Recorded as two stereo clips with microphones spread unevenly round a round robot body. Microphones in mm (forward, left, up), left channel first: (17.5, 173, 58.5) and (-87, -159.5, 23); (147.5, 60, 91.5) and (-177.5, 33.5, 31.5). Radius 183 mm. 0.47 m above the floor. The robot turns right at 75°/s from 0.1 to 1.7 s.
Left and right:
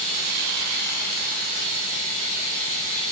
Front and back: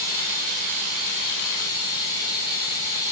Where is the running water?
165° left, 3.5 m; by 3.1 s 75° right, 3.5 m.